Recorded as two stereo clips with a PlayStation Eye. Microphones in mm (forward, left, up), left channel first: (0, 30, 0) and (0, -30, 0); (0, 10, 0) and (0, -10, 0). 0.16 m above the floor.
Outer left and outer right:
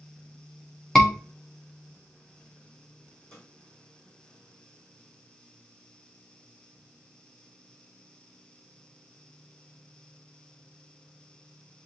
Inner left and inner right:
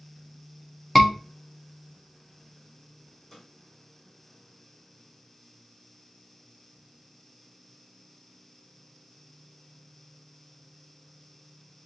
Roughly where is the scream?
Centre.